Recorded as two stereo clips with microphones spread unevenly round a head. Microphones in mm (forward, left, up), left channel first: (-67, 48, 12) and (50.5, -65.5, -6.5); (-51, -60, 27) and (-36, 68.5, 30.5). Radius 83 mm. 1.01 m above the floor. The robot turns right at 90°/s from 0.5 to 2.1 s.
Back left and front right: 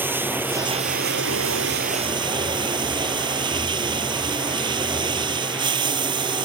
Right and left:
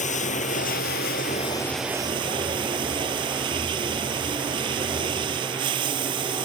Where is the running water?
125° right; by 6.5 s 20° left.